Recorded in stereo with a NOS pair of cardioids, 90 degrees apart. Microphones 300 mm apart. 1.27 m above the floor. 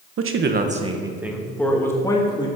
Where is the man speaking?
50° right, 1.3 m; by 2.5 s 15° left, 3 m.